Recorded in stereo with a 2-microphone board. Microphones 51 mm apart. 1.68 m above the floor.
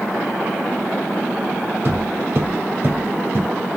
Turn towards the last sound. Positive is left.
turn(degrees=-45)  # may be behind; listen again after turning